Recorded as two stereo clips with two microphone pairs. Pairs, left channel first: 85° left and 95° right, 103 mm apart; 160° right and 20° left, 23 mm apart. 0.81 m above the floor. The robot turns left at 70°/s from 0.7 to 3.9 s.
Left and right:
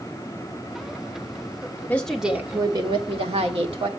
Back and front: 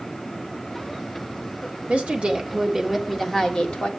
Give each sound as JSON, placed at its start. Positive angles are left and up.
{"t": 1.9, "sound": "a woman speaking", "azimuth_deg": 10, "distance_m": 1.6}